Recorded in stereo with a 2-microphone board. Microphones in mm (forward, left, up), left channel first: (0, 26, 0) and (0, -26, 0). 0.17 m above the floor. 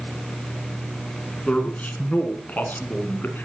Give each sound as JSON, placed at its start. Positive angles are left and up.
{"t": 1.4, "sound": "a man speaking", "side_deg": 20, "distance_m": 2.5}